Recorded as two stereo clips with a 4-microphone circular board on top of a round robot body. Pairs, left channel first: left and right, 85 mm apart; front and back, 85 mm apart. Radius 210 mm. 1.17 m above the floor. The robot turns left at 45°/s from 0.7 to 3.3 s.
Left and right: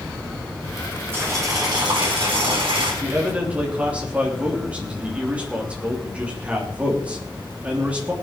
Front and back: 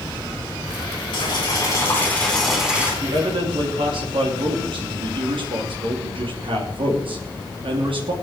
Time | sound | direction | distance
1.1 | boiling | 25° right | 4.5 m
3.0 | a man speaking | 150° right | 3 m